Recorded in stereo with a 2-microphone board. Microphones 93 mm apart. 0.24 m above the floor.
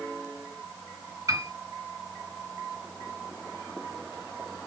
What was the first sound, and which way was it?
A piano, 35° right (ahead or behind).